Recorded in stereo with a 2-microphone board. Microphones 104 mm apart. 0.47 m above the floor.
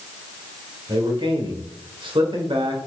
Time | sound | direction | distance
0.9 | a man speaking | 50° right (ahead or behind) | 1.7 m